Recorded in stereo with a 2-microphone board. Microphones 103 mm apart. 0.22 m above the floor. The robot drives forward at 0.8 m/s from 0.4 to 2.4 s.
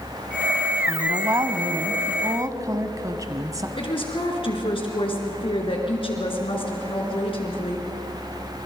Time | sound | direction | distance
0.9 | a woman speaking | 30° right (ahead or behind) | 1.4 m
3.8 | a woman speaking | 60° left (ahead or behind) | 3.5 m